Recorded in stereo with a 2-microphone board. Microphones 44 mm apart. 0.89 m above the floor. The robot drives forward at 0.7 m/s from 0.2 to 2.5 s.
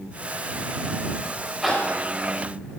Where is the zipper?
5° right (ahead or behind), 3.5 m.